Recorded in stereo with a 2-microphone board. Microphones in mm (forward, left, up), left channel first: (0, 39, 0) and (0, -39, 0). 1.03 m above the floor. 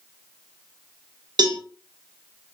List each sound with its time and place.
1.4 s a cowbell: 60° right (ahead or behind), 0.7 m